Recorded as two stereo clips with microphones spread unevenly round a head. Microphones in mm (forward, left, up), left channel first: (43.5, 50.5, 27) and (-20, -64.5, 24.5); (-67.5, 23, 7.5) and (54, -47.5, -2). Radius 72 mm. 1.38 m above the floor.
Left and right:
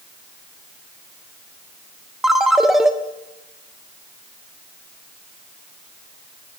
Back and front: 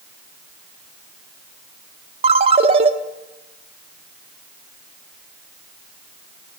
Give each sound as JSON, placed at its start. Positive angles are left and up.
{"t": 2.2, "sound": "a ringtone", "azimuth_deg": -35, "distance_m": 1.0}